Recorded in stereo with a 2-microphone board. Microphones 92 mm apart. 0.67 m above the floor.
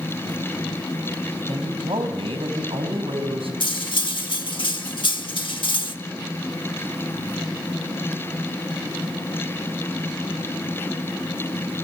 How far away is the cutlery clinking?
About 1.0 m.